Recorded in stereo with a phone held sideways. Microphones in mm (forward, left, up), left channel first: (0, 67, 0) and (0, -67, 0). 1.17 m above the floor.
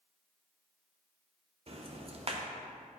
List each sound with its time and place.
1.7 s ticking: 45° right (ahead or behind), 0.8 m